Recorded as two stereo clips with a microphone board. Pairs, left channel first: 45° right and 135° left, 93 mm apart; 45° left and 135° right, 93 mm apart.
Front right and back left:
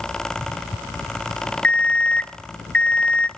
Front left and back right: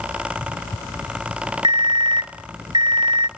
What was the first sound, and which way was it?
An alarm clock, 120° right.